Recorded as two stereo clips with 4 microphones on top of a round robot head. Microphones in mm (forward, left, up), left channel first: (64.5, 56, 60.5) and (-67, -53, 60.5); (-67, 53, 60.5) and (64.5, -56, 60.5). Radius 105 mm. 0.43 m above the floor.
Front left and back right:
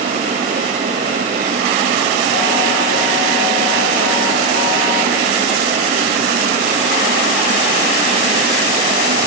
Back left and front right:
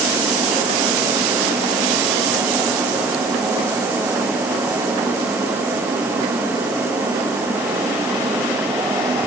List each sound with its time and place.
Only background noise.